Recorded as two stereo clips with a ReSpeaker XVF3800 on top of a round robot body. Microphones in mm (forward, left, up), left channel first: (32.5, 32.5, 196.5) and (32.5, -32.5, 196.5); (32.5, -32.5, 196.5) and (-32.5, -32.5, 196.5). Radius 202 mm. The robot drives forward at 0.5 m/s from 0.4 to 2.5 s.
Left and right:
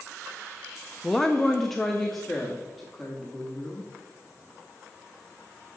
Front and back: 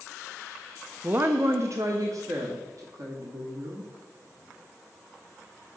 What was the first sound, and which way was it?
A woman speaking, 165° left.